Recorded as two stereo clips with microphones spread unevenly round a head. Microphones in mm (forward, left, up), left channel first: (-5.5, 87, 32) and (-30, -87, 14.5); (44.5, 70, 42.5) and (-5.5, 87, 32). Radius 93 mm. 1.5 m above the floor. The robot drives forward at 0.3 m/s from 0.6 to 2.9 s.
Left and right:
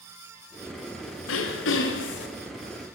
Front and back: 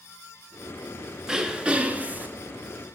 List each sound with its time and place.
1.3 s throat clearing: 85° left, 0.8 m; by 2.3 s 105° left, 0.8 m